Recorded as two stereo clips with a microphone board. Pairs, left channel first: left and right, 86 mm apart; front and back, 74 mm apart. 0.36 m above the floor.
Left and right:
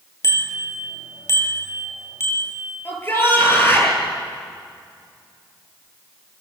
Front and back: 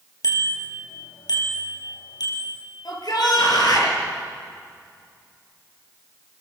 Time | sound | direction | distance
0.2 | a bicycle bell | 35° left | 5.5 m
2.9 | a shout | 25° left | 9 m